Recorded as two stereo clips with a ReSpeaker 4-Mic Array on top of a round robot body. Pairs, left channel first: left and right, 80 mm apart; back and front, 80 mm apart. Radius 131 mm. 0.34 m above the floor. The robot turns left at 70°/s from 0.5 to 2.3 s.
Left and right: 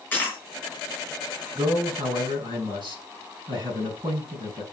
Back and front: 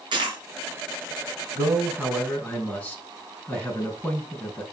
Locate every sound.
0.1 s a dropped coin: 20° left, 3.5 m
1.6 s a man speaking: 50° right, 6 m; by 4.6 s 105° right, 6 m